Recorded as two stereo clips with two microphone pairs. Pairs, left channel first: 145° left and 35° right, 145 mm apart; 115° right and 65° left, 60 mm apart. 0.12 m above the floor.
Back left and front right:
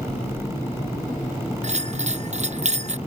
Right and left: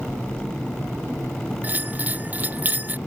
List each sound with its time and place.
1.6 s a bell: 5° left